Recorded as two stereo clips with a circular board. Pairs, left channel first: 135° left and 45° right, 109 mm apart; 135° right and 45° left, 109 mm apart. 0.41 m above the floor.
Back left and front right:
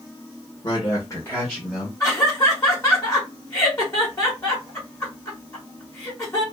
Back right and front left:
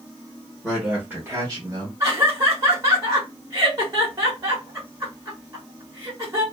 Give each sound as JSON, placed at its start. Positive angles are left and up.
{"t": 0.6, "sound": "a man speaking", "azimuth_deg": 135, "distance_m": 1.3}
{"t": 2.0, "sound": "laughter", "azimuth_deg": 90, "distance_m": 1.3}